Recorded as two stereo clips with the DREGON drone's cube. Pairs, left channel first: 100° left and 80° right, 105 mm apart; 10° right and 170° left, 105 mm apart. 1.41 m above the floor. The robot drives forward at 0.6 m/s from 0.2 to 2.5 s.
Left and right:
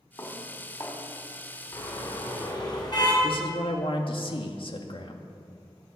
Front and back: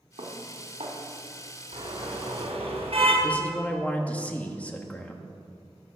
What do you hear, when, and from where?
0.2 s dishes clattering: 155° left, 3 m
1.7 s a car horn: 145° left, 4.5 m
3.2 s a man speaking: 65° left, 1.9 m